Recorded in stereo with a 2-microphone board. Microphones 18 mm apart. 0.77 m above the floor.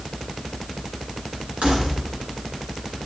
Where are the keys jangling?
80° right, 7.5 m.